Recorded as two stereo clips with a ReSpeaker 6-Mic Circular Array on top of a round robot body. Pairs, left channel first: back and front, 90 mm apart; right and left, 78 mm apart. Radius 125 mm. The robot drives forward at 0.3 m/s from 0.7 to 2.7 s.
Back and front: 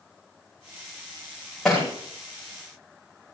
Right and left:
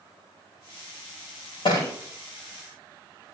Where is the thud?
90° right, 8.5 m.